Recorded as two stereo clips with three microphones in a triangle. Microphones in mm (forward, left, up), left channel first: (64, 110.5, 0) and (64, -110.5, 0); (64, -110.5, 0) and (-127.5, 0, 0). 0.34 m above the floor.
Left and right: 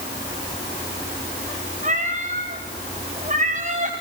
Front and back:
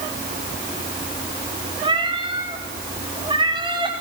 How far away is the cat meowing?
About 4.5 m.